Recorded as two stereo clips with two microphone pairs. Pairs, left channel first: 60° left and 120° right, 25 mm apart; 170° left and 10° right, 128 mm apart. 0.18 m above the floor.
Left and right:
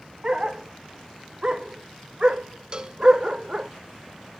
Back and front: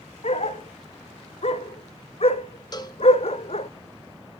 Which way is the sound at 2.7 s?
150° right.